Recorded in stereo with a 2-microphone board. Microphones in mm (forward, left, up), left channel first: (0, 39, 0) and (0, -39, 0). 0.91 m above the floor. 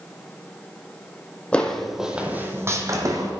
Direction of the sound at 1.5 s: 15° left (ahead or behind).